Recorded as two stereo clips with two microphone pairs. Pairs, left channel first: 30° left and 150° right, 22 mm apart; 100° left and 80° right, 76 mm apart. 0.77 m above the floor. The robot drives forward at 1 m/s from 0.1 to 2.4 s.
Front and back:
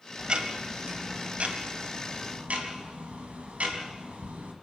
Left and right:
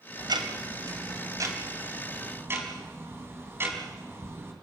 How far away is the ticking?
About 2 m.